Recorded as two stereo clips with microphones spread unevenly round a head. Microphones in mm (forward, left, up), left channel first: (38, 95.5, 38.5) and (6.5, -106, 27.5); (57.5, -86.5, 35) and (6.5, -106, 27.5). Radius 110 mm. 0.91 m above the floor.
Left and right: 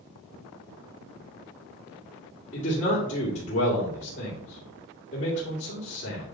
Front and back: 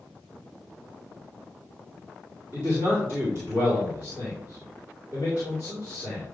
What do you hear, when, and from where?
2.5 s a man speaking: 140° left, 2.5 m